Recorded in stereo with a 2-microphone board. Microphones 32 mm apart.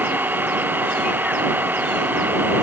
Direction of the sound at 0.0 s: 75° right (ahead or behind).